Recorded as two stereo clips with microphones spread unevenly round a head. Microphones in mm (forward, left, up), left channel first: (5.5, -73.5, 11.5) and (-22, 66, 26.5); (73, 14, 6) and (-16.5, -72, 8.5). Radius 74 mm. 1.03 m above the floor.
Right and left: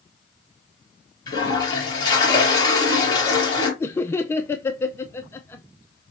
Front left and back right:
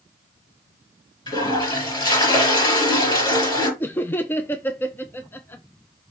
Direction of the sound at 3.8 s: 20° right.